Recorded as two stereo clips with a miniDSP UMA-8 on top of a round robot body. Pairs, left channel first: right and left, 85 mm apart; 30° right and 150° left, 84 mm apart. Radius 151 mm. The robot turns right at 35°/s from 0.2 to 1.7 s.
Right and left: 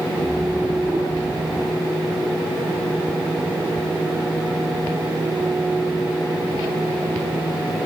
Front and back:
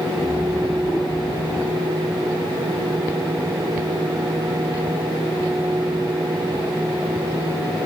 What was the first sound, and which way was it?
Only background noise.